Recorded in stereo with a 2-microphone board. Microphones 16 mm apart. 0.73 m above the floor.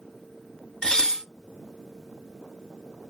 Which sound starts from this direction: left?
Dishes clattering, at 0.8 s.